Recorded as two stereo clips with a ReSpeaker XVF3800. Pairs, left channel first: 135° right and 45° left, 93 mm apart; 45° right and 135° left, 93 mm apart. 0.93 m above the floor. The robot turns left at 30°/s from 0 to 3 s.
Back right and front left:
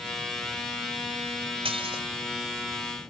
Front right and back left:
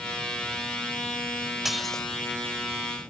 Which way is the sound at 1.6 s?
50° left.